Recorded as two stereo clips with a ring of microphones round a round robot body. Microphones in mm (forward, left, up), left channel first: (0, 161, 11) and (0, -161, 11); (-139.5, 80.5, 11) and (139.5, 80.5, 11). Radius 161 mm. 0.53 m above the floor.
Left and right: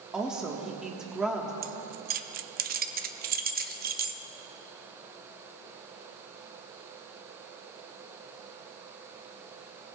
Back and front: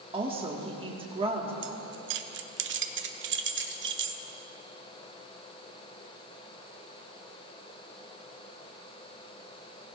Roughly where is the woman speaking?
Ahead.